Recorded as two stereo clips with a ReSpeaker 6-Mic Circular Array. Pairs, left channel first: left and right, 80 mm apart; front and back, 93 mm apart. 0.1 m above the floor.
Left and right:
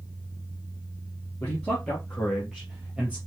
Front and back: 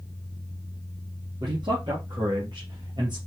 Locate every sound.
1.4 s a man speaking: 165° left, 3 m; by 3.2 s 155° right, 3 m